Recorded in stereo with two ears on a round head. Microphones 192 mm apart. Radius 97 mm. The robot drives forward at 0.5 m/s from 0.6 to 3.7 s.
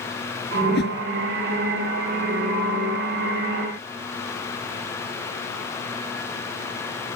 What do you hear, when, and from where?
0.6 s a whoosh: 50° left (ahead or behind)